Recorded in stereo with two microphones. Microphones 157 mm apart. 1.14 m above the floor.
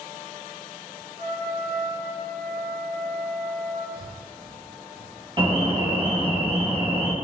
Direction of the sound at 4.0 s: 75° right (ahead or behind).